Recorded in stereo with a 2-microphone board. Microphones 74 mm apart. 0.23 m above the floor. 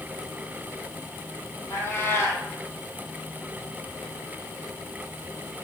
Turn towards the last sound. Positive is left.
turn(degrees=35)  # may be behind; listen again after turning